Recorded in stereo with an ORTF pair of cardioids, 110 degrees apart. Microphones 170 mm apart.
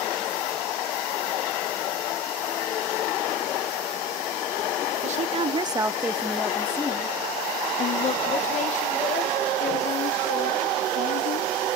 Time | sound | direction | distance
5.0 | a woman speaking | 45° right | 0.9 m